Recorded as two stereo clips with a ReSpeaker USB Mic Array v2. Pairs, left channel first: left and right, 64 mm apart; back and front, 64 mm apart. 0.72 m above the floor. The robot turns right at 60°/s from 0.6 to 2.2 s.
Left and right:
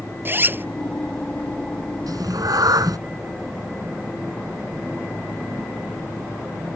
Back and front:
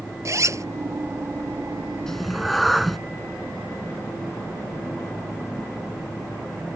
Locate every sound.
0.2 s a zipper: 35° right; by 0.7 s 30° right
2.1 s a cat meowing: 100° right; by 3.0 s 90° right